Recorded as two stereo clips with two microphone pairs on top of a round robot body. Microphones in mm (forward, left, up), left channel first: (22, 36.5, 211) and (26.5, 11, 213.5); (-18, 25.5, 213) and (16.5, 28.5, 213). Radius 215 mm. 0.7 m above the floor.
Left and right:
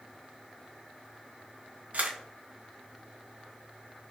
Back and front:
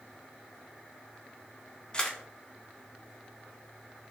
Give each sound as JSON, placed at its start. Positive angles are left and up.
{"t": 1.9, "sound": "a camera shutter", "azimuth_deg": -110, "distance_m": 0.5}